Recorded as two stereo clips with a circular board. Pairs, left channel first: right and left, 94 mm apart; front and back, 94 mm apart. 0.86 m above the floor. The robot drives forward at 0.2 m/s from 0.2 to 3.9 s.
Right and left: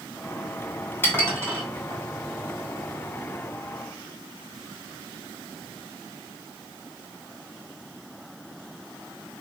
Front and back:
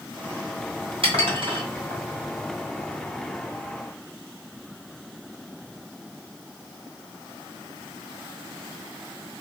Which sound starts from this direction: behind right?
Dishes clattering, at 1.0 s.